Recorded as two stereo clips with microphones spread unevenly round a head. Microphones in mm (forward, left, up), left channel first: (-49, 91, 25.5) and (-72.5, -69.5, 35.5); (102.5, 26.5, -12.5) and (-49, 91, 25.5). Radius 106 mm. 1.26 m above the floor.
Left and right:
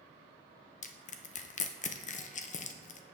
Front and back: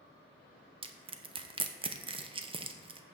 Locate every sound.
0.8 s crushing: 95° left, 0.7 m